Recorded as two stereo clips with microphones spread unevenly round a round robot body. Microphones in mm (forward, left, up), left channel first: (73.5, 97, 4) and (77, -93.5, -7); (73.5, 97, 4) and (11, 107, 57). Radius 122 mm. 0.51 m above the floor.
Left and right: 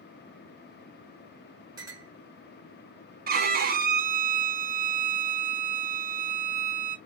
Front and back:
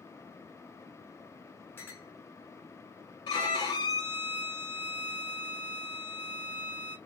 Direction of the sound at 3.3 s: 50° right.